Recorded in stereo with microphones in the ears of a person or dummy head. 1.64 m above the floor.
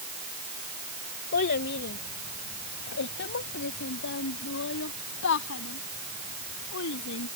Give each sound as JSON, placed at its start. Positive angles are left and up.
{"t": 1.3, "sound": "a child speaking", "side_deg": 50}